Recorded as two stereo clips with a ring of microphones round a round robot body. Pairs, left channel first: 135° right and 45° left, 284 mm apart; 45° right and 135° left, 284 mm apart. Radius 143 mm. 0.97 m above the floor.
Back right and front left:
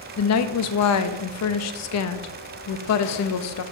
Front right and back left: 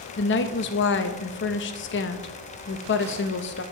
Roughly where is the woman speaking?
Right.